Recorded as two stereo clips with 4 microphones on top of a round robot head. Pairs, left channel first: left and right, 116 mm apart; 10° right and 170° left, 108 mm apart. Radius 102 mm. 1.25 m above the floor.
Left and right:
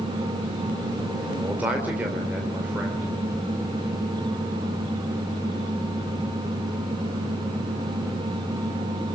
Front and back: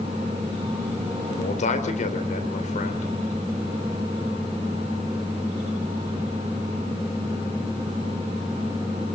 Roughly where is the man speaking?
Ahead.